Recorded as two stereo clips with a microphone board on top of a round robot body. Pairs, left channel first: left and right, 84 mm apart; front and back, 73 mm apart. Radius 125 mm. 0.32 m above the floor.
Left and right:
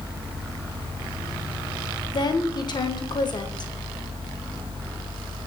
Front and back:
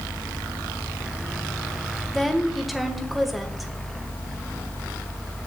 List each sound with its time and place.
2.1 s a woman speaking: 90° left, 1.8 m